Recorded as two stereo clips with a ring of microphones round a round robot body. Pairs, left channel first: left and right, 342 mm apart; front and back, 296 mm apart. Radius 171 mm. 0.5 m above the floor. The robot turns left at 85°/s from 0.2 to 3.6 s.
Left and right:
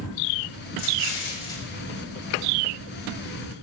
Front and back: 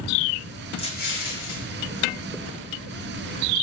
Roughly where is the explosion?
Left.